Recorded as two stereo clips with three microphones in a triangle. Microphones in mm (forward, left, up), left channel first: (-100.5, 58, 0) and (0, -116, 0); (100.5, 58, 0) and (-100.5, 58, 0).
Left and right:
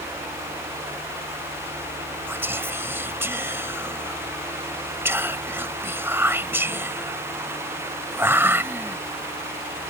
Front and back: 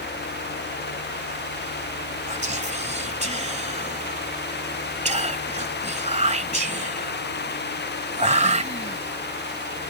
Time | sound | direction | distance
2.3 | whispering | 135° right | ?